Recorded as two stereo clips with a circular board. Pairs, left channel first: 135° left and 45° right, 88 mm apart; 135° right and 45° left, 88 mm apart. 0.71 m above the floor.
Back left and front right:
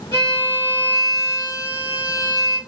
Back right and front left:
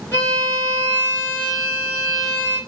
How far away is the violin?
About 1.8 m.